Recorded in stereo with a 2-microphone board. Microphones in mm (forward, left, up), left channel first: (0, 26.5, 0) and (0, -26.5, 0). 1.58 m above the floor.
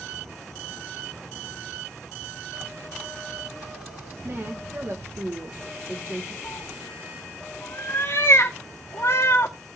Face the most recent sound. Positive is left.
turn(degrees=55)  # may be behind; listen again after turning